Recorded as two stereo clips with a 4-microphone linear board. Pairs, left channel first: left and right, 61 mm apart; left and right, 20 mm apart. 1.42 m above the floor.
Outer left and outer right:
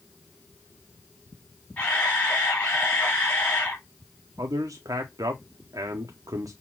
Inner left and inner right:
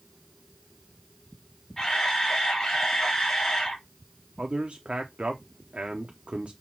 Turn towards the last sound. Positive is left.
turn(degrees=-85)